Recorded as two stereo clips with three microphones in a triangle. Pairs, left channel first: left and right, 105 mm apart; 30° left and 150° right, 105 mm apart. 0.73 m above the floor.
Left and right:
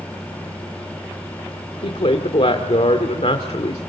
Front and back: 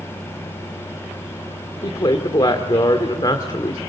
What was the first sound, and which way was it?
A woman speaking, 75° left.